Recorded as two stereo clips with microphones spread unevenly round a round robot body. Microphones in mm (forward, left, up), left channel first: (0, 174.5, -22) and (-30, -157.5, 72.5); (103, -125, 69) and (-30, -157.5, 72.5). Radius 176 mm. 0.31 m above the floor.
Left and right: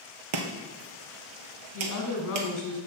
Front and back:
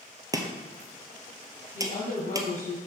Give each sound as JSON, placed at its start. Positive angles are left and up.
{"t": 0.3, "sound": "chopping", "azimuth_deg": -100, "distance_m": 1.4}
{"t": 1.7, "sound": "a woman speaking", "azimuth_deg": 45, "distance_m": 3.0}